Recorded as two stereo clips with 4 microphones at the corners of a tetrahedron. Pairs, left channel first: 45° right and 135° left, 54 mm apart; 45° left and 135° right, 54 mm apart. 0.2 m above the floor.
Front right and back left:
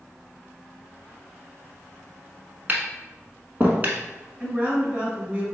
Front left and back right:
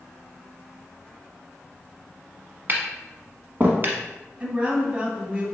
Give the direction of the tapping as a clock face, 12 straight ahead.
6 o'clock.